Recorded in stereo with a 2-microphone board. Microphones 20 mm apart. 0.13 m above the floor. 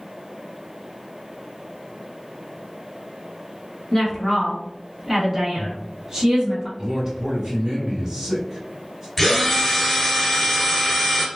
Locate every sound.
3.9 s a woman speaking: 30° left (ahead or behind), 1.2 m; by 6.7 s 35° right (ahead or behind), 1.6 m
6.8 s a man speaking: 35° right (ahead or behind), 1.5 m
9.2 s a drill: 5° left (ahead or behind), 1.0 m